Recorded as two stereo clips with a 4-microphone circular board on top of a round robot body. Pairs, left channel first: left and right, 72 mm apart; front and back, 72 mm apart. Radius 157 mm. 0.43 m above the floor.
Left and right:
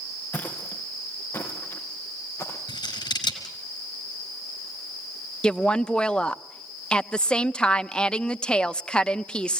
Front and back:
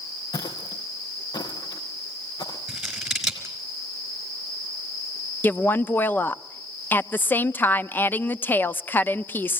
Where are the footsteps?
25° left, 3 m; by 2.6 s 35° left, 4.5 m.